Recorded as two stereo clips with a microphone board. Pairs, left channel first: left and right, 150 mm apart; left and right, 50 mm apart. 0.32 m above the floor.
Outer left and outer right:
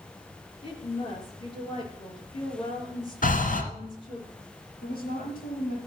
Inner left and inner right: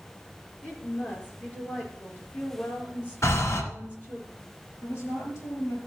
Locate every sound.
0.6 s a woman speaking: 35° left (ahead or behind), 5.5 m
3.2 s breathing: 65° left (ahead or behind), 2.0 m
4.8 s a woman speaking: 80° left, 6 m